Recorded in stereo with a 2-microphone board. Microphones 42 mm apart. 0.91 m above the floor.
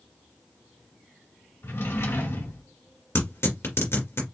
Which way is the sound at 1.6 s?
65° left (ahead or behind).